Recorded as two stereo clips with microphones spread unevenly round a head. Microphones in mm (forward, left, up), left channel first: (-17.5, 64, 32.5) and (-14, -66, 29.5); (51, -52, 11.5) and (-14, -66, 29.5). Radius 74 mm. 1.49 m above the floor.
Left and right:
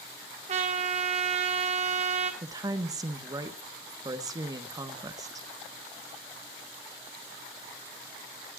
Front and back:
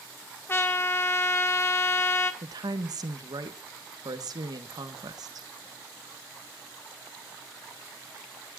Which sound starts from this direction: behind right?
A woman speaking, at 2.4 s.